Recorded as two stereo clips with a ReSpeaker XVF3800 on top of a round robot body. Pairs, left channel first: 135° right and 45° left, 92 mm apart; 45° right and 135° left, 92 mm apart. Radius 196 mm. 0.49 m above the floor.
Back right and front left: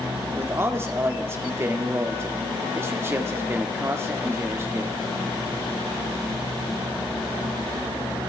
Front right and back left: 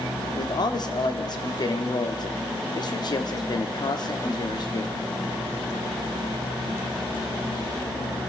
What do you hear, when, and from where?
0.3 s a man speaking: 15° right, 1.7 m